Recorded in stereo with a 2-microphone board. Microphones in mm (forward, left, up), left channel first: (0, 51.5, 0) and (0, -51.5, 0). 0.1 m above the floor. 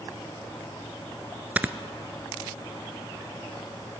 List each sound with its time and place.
1.6 s snoring: 15° right (ahead or behind), 0.5 m